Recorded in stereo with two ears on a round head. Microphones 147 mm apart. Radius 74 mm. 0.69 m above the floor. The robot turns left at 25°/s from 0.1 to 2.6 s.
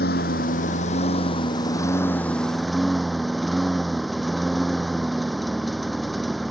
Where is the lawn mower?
65° left; by 6.5 s straight ahead.